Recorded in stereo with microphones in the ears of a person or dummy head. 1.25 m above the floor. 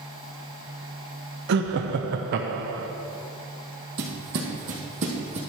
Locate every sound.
1.5 s laughter: 60° right (ahead or behind), 0.6 m
4.0 s footsteps: 50° right (ahead or behind), 1.9 m; by 5.4 s 40° right (ahead or behind), 2 m